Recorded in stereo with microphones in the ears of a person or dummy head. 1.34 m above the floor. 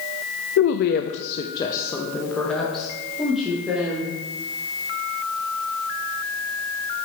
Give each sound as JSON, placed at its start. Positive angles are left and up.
{"t": 0.6, "sound": "a woman speaking", "side_deg": 75, "distance_m": 0.5}